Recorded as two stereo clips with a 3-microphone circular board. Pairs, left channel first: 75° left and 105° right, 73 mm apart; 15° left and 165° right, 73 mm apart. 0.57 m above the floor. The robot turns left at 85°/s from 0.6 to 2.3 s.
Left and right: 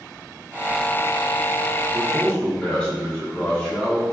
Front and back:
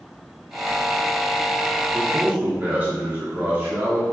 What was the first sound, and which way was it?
A man speaking, 175° left.